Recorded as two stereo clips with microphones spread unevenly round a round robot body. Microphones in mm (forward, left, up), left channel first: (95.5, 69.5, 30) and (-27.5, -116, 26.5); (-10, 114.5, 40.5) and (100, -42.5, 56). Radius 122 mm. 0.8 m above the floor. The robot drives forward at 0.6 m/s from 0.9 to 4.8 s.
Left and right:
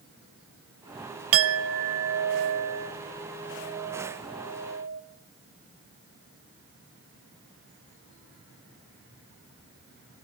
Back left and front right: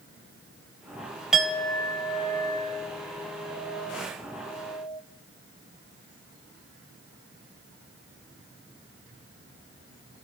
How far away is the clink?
About 0.5 m.